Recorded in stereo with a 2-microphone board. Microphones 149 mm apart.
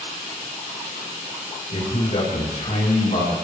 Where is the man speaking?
55° left (ahead or behind), 9.5 m; by 3.3 s 65° left (ahead or behind), 9 m.